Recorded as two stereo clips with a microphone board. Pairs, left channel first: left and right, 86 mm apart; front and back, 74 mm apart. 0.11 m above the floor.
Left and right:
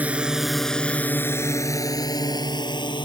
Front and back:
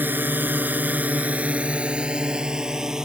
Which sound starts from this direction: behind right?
A drone, at 0.0 s.